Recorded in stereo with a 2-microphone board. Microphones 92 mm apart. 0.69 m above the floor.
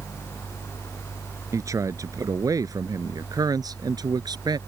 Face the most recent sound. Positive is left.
turn(degrees=-50)  # may be behind; listen again after turning